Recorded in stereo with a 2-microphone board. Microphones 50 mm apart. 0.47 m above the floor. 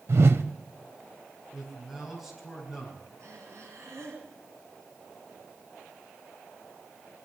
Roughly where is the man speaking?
Centre.